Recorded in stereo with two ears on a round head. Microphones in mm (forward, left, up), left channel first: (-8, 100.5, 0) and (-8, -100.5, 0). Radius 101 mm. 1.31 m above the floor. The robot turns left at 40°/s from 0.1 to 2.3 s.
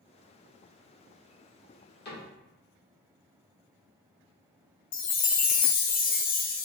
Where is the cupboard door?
45° left (ahead or behind), 2 m; by 2.3 s 55° left (ahead or behind), 2 m.